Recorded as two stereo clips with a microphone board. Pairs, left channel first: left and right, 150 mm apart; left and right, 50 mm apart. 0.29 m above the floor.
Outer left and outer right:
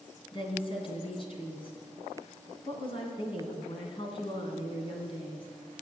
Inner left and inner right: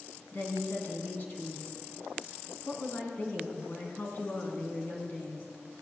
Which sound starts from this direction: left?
A woman speaking, at 0.3 s.